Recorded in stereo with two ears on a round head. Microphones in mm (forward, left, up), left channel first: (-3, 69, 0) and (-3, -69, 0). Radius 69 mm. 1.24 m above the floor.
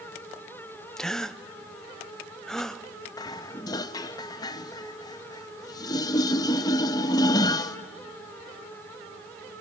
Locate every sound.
1.0 s a gasp: 5° left (ahead or behind), 0.5 m
3.2 s dishes clattering: 25° left (ahead or behind), 0.6 m